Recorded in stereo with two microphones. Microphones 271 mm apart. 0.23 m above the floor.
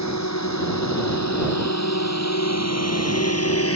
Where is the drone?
85° left; by 3.8 s 55° left (ahead or behind).